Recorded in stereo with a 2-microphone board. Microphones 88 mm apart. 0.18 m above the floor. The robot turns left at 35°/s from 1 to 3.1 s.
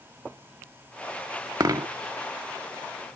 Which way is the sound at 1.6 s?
45° right (ahead or behind).